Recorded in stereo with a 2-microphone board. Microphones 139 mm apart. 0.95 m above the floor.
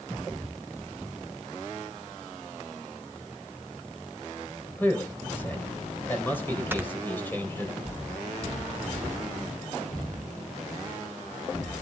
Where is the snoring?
15° right (ahead or behind), 0.9 m.